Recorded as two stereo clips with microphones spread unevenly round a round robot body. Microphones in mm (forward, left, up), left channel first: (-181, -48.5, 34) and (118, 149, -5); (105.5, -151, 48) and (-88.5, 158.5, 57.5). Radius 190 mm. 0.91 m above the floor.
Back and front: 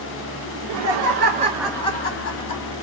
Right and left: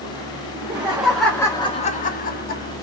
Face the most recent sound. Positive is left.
turn(degrees=-120)